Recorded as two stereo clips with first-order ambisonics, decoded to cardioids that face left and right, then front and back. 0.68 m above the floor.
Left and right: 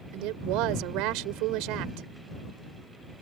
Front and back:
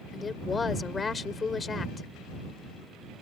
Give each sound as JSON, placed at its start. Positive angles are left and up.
{"t": 0.1, "sound": "a woman speaking", "azimuth_deg": -70}